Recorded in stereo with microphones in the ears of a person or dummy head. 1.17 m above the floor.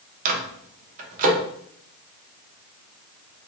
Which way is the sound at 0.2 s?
35° right (ahead or behind).